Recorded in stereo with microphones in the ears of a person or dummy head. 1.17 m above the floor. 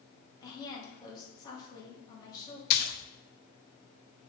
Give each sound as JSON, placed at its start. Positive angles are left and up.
{"t": 0.4, "sound": "a woman speaking", "side_deg": 25, "distance_m": 2.0}
{"t": 2.7, "sound": "a splash", "side_deg": 55, "distance_m": 0.7}